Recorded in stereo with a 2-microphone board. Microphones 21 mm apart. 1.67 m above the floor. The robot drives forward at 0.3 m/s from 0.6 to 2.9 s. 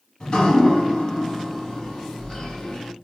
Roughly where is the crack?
No crack in this recording.